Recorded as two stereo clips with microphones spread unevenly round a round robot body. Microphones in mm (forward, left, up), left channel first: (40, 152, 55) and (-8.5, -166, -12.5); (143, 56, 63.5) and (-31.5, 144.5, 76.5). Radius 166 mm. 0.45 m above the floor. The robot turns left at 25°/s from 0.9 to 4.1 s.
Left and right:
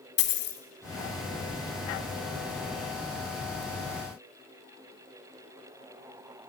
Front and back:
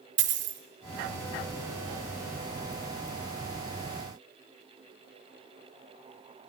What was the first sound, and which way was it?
A dropped coin, 135° left.